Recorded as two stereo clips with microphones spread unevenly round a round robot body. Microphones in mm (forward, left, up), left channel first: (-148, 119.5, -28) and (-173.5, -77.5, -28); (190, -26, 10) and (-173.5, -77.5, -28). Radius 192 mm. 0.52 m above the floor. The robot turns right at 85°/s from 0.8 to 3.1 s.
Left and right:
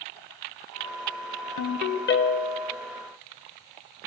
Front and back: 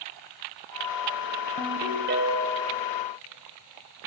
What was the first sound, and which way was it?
A ringtone, 80° left.